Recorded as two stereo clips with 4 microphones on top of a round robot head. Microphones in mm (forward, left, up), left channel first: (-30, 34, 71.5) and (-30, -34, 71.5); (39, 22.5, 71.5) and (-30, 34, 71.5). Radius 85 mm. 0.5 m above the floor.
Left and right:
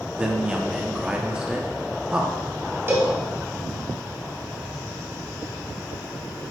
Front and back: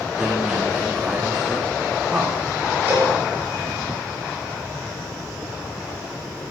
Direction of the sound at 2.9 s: 135° right.